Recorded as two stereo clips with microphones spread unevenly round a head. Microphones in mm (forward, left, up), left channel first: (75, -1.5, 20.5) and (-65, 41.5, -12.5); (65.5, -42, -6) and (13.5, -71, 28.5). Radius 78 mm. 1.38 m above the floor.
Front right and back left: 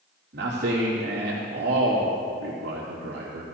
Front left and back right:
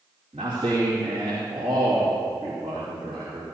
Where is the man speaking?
165° left, 2.5 m.